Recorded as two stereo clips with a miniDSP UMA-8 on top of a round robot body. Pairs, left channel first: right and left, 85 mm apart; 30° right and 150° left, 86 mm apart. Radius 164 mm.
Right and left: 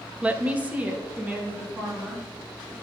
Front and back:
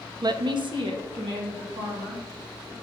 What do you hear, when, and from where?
0.2 s a woman speaking: 160° left, 0.5 m